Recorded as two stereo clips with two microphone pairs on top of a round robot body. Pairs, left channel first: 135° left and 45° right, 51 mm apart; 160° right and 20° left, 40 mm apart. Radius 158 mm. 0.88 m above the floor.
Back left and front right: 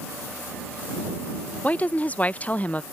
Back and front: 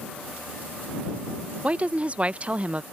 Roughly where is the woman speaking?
Left.